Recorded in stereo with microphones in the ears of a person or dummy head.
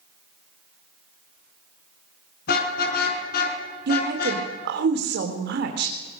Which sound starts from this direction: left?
A car horn, at 2.5 s.